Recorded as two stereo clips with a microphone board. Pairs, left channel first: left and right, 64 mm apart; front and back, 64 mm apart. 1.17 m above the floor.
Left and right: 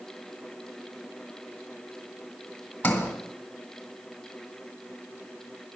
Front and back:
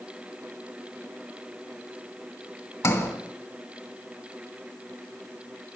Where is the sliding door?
25° left, 1.7 m.